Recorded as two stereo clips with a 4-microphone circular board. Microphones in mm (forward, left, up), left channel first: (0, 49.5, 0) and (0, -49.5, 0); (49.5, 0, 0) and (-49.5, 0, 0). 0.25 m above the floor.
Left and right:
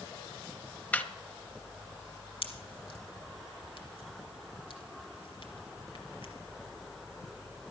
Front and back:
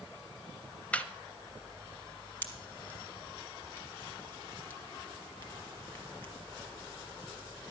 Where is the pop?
70° left, 2.5 m.